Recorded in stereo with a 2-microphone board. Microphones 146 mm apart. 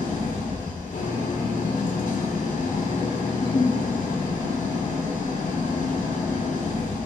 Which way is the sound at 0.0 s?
65° left (ahead or behind).